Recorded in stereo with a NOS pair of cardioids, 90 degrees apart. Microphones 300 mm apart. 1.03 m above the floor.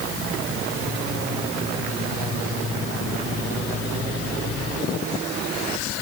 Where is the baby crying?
No baby crying in this recording.